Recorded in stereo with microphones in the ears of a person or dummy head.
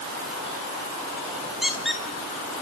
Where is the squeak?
Centre (ahead or behind), 1.3 m.